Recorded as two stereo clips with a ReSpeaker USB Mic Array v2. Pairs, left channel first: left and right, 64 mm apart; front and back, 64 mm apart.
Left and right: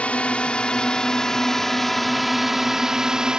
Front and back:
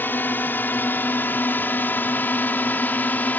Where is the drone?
35° left; by 3.4 s 25° right.